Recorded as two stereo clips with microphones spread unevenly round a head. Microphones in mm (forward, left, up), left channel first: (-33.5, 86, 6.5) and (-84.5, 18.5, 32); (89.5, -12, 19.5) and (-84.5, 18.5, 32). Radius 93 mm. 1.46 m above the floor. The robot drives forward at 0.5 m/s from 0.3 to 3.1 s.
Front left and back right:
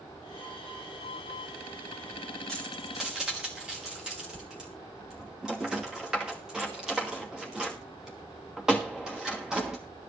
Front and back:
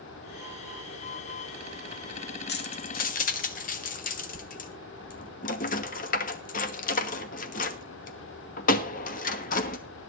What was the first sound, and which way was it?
Keys jangling, 40° right.